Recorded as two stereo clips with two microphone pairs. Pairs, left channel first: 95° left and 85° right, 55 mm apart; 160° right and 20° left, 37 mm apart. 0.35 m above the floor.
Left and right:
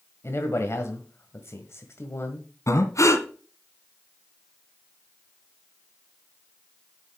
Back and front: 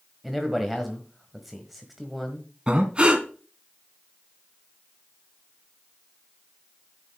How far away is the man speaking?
About 1.6 m.